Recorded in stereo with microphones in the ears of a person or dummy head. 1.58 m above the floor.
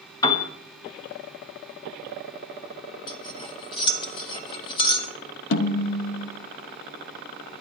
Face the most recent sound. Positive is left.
turn(degrees=70)  # may be behind; listen again after turning